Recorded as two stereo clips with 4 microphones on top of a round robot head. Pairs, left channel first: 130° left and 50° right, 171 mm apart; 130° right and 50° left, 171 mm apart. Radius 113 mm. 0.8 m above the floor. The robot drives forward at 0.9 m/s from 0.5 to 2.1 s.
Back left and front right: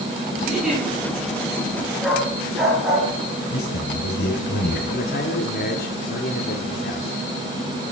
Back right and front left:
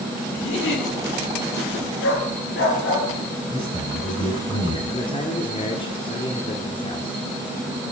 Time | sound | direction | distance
0.4 | a giggle | 135° right | 9 m
2.0 | a dog barking | 135° right | 6.5 m
3.5 | a man speaking | 165° left | 9.5 m
4.9 | a man speaking | 165° left | 2.5 m